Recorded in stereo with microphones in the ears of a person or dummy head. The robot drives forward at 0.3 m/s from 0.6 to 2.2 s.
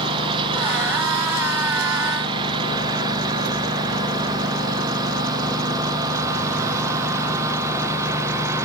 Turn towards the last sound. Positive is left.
turn(degrees=-20)  # may be behind; listen again after turning